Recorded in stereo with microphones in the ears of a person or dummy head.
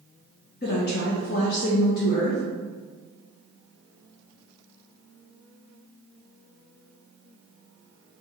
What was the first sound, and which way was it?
A woman speaking, 40° left (ahead or behind).